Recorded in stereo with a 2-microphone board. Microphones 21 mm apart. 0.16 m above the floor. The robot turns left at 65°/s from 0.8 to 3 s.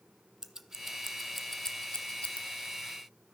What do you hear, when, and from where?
0.4 s scissors: 30° right (ahead or behind), 0.8 m; by 2.4 s 75° left (ahead or behind), 0.8 m